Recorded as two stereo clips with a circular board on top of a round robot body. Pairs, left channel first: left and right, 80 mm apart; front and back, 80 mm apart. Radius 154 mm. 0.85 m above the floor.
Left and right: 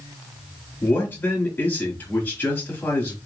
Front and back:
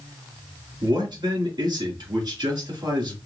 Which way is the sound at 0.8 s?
155° left.